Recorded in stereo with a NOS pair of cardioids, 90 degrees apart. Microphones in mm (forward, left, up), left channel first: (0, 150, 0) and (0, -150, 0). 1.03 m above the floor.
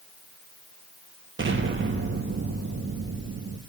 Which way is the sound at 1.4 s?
40° right.